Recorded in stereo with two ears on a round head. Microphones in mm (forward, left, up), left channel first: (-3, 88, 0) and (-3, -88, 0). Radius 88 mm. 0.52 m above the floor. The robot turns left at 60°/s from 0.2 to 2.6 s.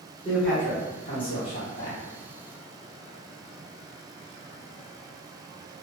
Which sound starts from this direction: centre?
A man speaking, at 0.2 s.